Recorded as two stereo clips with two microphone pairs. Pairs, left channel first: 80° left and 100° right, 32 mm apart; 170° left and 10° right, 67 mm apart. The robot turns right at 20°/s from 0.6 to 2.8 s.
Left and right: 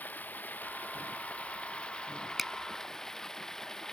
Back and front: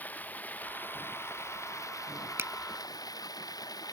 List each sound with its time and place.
0.0 s running water: 105° left; by 3.9 s 150° left
2.4 s a finger snap: 15° right